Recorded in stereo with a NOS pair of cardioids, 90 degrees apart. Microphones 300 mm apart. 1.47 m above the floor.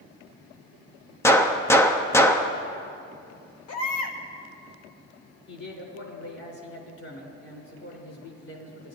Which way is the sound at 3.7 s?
55° left.